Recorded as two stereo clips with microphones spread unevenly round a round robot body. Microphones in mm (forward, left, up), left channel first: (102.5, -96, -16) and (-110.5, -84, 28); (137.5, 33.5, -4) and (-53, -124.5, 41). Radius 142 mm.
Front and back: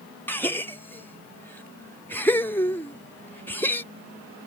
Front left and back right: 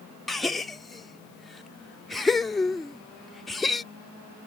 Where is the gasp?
25° right.